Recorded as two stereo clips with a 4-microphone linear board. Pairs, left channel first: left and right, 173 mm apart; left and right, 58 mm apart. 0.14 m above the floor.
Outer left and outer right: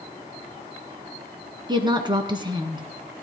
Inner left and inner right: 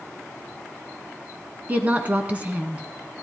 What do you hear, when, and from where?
1.7 s a woman speaking: 25° right (ahead or behind), 1.6 m